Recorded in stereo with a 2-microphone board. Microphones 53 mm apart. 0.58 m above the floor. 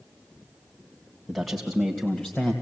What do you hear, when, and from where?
1.3 s a man speaking: centre (ahead or behind), 2.5 m; by 2.5 s 25° left (ahead or behind), 3 m